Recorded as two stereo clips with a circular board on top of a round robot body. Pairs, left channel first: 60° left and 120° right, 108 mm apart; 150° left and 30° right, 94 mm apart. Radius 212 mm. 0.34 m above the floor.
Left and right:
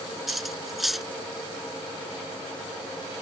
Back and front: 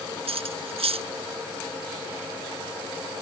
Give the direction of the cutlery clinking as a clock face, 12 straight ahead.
1 o'clock.